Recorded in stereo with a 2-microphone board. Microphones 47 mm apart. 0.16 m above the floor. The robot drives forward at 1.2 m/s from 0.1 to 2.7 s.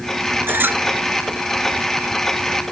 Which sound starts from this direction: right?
A squeak, at 0.5 s.